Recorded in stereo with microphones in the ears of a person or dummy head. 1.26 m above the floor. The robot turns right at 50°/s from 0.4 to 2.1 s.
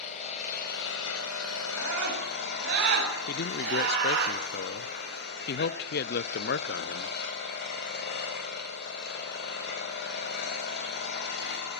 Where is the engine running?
35° left, 4 m; by 11.8 s 120° left, 4 m.